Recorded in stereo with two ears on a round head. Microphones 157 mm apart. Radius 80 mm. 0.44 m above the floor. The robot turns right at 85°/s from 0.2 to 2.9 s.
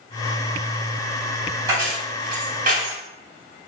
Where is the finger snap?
No finger snap in this recording.